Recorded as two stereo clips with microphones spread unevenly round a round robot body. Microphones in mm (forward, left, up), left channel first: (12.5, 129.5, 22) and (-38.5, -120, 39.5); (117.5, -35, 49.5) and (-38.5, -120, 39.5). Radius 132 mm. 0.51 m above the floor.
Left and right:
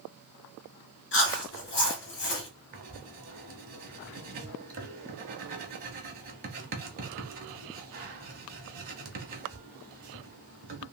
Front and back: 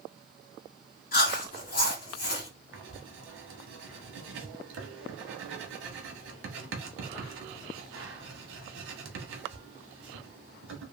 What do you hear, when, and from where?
1.1 s chewing: 55° left, 1.9 m
2.7 s writing: 155° right, 0.9 m